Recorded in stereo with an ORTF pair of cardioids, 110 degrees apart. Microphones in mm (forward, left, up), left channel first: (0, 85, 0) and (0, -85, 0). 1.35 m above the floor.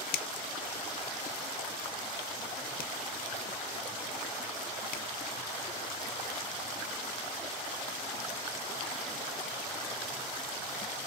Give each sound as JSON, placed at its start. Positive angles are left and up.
{"t": 0.1, "sound": "a finger snap", "azimuth_deg": 60, "distance_m": 0.5}